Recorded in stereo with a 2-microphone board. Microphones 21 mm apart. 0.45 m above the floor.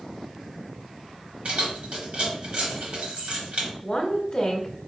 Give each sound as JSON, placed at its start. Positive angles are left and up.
{"t": 1.4, "sound": "keys jangling", "side_deg": -70, "distance_m": 1.7}
{"t": 3.8, "sound": "a woman speaking", "side_deg": 30, "distance_m": 1.1}